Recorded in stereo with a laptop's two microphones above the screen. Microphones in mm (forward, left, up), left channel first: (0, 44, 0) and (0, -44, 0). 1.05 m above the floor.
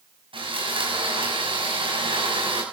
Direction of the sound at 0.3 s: 85° right.